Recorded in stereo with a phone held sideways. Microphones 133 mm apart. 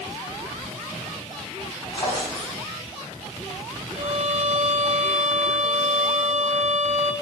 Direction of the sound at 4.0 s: 60° right (ahead or behind).